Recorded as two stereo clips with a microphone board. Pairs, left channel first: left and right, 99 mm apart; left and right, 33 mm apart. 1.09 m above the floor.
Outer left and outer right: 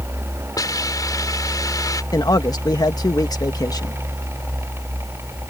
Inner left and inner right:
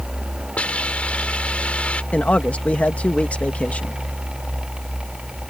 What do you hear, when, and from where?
0.6 s a hiss: 40° left (ahead or behind)
2.1 s a man speaking: 40° left (ahead or behind)